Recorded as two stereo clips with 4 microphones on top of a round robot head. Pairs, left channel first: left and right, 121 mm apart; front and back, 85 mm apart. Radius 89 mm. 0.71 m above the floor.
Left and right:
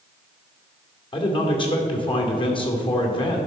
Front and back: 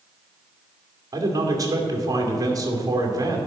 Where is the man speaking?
135° left, 2.5 m.